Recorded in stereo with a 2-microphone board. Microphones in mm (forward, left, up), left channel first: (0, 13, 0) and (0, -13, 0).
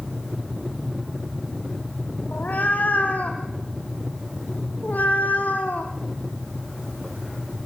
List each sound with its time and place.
2.3 s a cat meowing: 90° left, 3 m